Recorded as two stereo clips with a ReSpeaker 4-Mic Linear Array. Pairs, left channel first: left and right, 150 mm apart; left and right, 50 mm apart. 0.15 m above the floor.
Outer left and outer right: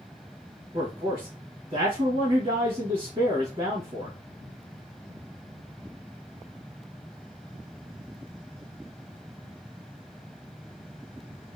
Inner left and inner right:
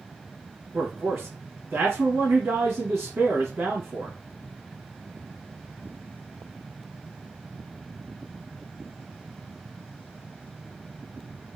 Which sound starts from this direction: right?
A man speaking, at 0.7 s.